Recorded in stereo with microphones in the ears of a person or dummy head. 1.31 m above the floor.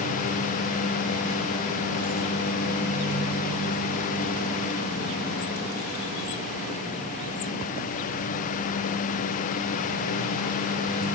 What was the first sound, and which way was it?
Only background noise.